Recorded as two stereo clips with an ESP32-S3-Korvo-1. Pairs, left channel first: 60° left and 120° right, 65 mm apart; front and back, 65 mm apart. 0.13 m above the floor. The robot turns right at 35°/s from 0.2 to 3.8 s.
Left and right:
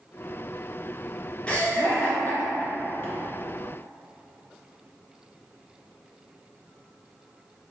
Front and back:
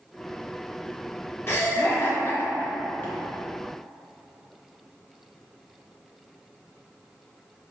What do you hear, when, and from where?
1.5 s laughter: 5° right, 1.3 m; by 3.1 s 50° left, 1.3 m